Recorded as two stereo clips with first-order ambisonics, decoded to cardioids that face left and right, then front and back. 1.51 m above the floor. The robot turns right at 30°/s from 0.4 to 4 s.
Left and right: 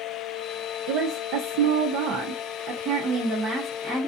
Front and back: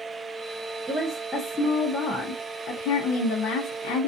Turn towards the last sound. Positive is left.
turn(degrees=-5)